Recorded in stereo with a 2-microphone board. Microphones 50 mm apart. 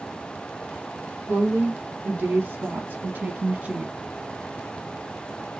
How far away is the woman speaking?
About 2 m.